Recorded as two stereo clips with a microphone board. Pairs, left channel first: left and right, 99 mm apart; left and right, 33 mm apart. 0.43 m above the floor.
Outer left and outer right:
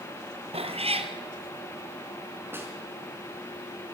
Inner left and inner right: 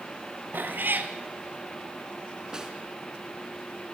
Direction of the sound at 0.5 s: 85° right.